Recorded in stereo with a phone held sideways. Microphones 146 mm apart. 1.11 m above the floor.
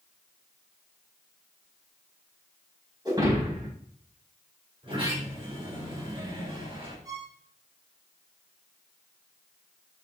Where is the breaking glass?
25° right (ahead or behind), 4.5 m.